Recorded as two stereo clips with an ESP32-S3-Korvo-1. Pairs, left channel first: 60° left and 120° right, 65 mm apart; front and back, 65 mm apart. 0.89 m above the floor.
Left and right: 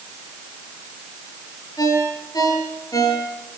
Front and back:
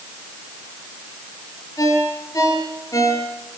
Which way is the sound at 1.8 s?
35° left.